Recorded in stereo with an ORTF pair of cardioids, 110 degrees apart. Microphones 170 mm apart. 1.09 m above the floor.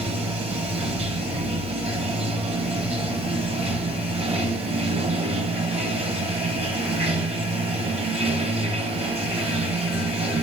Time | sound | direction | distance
0.0 | running water | 35° right | 1.0 m